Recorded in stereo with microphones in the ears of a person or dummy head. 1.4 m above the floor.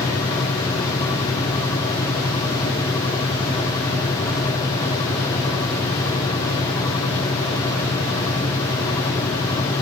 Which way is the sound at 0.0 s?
20° left (ahead or behind).